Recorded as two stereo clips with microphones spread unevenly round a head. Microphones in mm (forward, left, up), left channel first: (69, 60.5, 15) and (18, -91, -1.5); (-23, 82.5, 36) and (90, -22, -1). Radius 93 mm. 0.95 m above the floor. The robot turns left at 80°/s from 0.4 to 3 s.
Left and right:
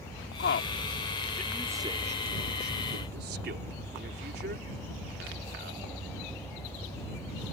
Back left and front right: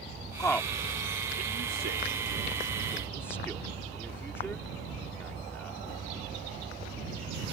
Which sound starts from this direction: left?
A man speaking, at 0.4 s.